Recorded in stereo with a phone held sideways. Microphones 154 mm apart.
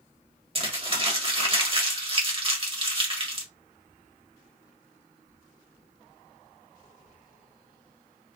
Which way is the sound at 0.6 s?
35° right (ahead or behind).